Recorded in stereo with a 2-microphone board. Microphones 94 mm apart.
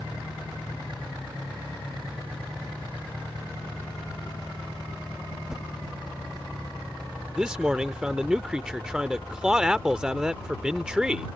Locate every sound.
5.5 s a whoosh: 5° right (ahead or behind)
7.4 s a man speaking: 10° right (ahead or behind)